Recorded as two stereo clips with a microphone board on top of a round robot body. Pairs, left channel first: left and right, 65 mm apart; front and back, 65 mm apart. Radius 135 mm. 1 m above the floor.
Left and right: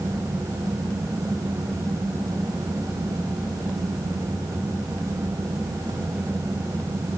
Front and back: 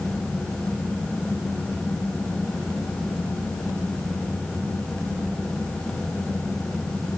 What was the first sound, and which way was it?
Only background noise.